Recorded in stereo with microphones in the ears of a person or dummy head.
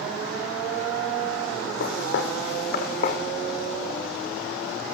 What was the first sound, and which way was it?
Footsteps, 55° left (ahead or behind).